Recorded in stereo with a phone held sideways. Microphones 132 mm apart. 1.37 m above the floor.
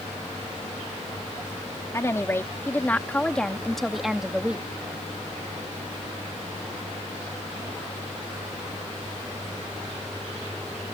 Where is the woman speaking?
25° left (ahead or behind); by 4.7 s 10° right (ahead or behind).